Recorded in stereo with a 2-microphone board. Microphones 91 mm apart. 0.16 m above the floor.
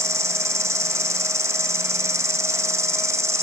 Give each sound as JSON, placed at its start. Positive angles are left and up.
{"t": 0.0, "sound": "an insect", "side_deg": -35, "distance_m": 1.8}